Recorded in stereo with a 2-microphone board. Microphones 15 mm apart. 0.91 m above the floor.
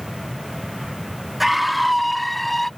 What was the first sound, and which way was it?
A scream, 10° right (ahead or behind).